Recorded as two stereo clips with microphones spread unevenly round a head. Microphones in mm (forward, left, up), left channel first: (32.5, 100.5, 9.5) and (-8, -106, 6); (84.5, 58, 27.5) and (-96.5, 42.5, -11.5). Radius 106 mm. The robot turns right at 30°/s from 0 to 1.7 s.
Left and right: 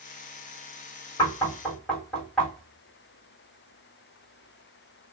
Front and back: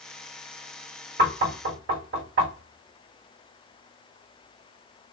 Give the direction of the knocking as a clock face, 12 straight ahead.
7 o'clock.